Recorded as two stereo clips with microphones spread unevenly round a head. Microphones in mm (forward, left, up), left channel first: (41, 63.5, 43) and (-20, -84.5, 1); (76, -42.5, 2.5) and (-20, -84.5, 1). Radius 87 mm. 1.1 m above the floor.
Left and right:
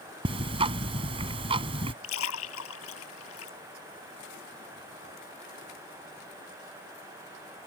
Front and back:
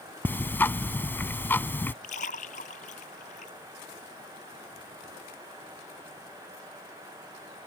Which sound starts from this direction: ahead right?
Ticking, at 0.2 s.